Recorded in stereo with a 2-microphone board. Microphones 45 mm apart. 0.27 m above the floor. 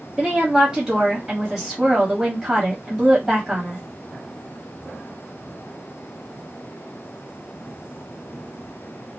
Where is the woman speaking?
15° right (ahead or behind), 1.3 m.